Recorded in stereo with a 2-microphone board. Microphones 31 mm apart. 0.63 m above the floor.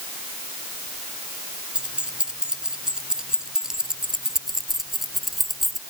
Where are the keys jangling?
35° right (ahead or behind); by 5.8 s 5° right (ahead or behind).